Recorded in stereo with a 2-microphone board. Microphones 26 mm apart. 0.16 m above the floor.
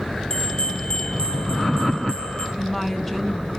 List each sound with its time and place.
0.3 s a bell: 30° left (ahead or behind), 2 m
2.6 s a woman speaking: 10° left (ahead or behind), 1.5 m